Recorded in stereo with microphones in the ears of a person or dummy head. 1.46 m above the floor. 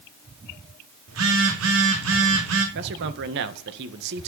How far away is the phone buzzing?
About 3 m.